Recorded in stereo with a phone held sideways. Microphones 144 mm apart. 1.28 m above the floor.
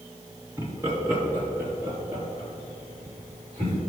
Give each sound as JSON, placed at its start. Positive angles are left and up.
{"t": 0.6, "sound": "laughter", "side_deg": -20, "distance_m": 2.0}